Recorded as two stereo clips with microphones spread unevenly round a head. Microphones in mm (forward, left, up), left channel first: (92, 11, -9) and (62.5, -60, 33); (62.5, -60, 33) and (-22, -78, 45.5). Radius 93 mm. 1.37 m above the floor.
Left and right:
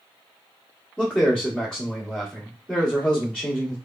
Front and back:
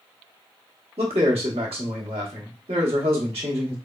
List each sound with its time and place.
1.0 s a man speaking: 155° left, 1.0 m